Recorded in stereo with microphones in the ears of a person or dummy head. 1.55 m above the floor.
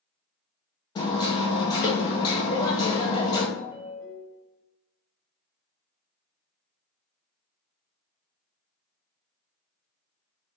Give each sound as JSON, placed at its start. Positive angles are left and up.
{"t": 0.9, "sound": "hammering", "side_deg": 25, "distance_m": 0.8}
{"t": 3.6, "sound": "a ringtone", "side_deg": 0, "distance_m": 1.4}